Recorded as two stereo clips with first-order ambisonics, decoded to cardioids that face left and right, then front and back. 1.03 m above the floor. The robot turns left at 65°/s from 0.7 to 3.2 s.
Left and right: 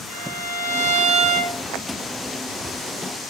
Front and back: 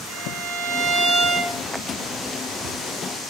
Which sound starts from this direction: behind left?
A violin, at 0.1 s.